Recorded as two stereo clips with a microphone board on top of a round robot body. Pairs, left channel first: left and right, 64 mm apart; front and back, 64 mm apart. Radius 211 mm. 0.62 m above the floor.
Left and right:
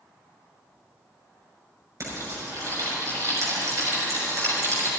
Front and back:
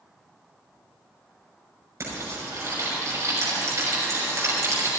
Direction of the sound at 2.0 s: 130° right.